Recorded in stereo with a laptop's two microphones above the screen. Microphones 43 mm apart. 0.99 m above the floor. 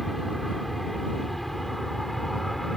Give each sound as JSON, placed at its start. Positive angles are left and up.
{"t": 0.0, "sound": "an aircraft", "side_deg": 0}